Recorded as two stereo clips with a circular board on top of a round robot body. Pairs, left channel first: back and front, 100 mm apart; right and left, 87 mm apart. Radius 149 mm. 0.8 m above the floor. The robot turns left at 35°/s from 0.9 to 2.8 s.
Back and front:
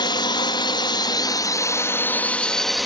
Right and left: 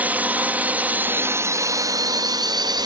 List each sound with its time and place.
0.0 s a drone: 155° left; by 2.9 s 90° left